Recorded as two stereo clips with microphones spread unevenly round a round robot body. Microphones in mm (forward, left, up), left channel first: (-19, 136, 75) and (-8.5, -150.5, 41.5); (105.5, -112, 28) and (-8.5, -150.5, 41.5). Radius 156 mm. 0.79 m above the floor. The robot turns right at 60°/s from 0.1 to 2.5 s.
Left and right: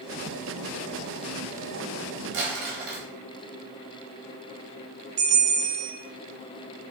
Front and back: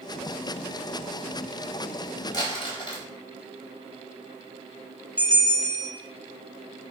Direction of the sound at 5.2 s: 85° right.